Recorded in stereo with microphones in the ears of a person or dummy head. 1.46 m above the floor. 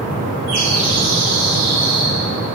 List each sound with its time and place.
0.5 s a bird: 70° right (ahead or behind), 2.5 m